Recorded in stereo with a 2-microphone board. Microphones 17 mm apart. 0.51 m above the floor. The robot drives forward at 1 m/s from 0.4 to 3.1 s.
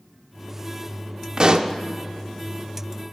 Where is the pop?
40° right (ahead or behind), 0.5 m.